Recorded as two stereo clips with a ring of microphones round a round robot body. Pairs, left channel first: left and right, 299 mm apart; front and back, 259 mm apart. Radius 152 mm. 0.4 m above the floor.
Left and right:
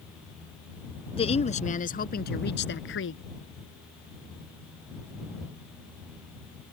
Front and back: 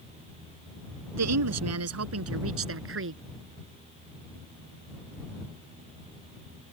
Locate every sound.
1.1 s a woman speaking: 160° left; by 3.2 s 140° left